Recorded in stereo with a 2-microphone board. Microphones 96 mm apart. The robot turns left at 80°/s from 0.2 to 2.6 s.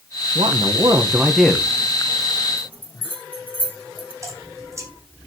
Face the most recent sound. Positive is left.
turn(degrees=-30)  # may be behind; listen again after turning